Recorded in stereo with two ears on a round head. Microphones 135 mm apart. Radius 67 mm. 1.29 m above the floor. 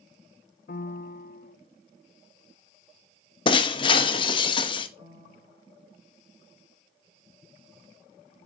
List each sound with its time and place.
0.7 s a piano: 65° left (ahead or behind), 0.5 m
3.5 s breaking glass: 35° left (ahead or behind), 0.8 m
5.0 s a piano: 40° right (ahead or behind), 1.9 m